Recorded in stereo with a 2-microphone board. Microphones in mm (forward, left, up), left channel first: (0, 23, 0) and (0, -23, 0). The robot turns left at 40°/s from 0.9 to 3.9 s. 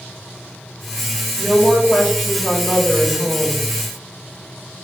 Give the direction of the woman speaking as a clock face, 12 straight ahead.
10 o'clock.